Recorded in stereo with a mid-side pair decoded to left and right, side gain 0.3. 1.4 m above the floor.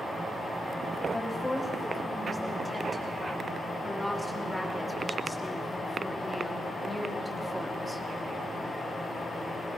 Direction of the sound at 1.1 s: 25° left.